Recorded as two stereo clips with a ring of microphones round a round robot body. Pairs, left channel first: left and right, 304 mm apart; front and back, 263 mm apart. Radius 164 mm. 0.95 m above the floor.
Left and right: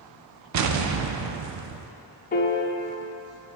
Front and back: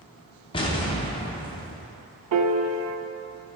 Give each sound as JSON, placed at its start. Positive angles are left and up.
{"t": 0.5, "sound": "an explosion", "azimuth_deg": -70, "distance_m": 0.5}
{"t": 2.3, "sound": "a piano", "azimuth_deg": 155, "distance_m": 0.6}